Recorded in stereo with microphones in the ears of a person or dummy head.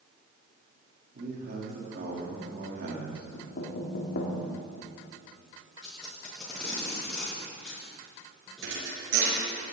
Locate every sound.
1.1 s a man speaking: 55° right (ahead or behind), 3.5 m
3.3 s knocking: 55° left (ahead or behind), 2.5 m
5.8 s tape being pulled: 5° left (ahead or behind), 6.5 m
8.6 s a thud: 75° right (ahead or behind), 5 m